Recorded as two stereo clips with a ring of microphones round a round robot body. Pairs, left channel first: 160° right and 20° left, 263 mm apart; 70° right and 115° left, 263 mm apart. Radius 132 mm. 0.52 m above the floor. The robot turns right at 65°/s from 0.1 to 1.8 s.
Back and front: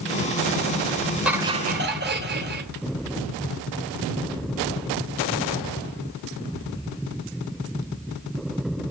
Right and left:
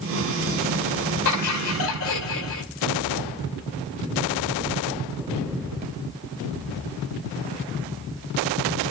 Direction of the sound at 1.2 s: 65° right.